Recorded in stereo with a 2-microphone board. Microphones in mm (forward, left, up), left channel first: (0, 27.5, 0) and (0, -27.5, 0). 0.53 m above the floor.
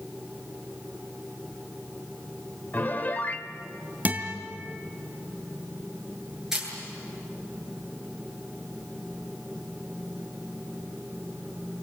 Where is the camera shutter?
5° right (ahead or behind), 9 m.